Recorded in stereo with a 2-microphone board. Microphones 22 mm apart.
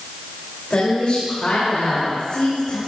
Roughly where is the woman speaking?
Left.